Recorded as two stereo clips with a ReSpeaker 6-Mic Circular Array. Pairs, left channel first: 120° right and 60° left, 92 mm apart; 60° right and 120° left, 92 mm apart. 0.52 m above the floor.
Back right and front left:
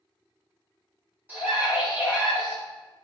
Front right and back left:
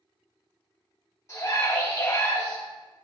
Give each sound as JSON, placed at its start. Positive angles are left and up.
{"t": 1.3, "sound": "a scream", "azimuth_deg": -5, "distance_m": 2.5}